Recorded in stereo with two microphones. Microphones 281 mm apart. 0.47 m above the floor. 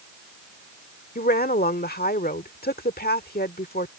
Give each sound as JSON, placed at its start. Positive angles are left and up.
{"t": 1.1, "sound": "a woman speaking", "side_deg": 30}